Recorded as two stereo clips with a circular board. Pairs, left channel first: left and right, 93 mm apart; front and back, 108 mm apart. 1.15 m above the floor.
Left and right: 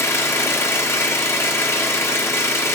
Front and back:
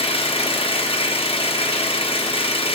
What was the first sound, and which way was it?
An engine running, 30° left.